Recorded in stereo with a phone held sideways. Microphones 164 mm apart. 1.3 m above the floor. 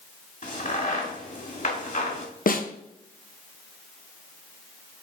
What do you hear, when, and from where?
0.4 s a crack: 50° left (ahead or behind), 1.5 m
2.5 s a snare drum: 60° left (ahead or behind), 0.7 m